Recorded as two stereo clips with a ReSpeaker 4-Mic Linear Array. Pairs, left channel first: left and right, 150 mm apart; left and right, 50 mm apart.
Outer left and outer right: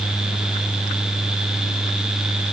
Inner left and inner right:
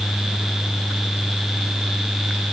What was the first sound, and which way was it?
Only background noise.